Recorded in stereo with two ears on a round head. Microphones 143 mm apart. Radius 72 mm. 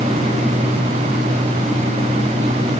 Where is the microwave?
I don't hear a microwave.